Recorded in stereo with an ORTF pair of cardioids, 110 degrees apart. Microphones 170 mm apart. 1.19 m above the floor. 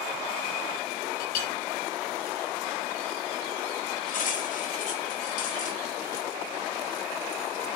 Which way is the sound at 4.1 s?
55° left.